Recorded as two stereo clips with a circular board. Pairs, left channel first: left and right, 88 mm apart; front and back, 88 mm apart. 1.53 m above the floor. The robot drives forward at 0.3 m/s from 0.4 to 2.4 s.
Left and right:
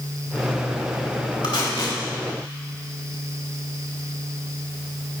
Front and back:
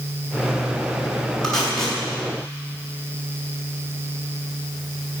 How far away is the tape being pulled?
About 3.5 m.